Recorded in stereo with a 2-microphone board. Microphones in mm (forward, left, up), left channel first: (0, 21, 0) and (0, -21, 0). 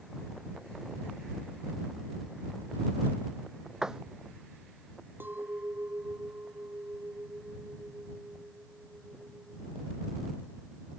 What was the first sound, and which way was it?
A door slam, 10° right (ahead or behind).